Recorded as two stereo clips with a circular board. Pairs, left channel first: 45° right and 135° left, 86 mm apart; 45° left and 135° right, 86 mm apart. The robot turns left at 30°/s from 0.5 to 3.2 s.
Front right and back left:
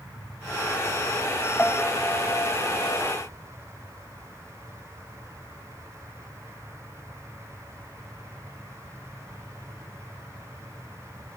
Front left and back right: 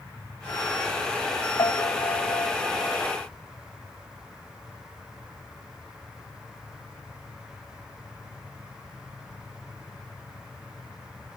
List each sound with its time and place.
1.6 s a piano: 30° left; by 3.0 s 15° right